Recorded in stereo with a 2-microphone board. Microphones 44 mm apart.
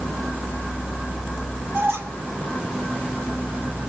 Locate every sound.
1.7 s a squeak: 65° right (ahead or behind), 1.9 m